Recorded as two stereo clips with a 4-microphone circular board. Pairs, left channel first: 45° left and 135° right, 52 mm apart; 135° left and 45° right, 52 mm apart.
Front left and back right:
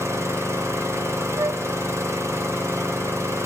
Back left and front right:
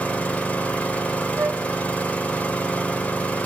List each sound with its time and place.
0.0 s an engine running: 160° right, 5 m
1.4 s a flute: 100° right, 1.9 m